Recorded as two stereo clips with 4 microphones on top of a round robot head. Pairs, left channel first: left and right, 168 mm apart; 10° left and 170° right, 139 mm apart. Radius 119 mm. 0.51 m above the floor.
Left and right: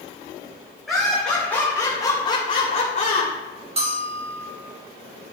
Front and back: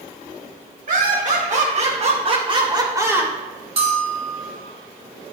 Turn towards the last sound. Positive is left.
turn(degrees=-135)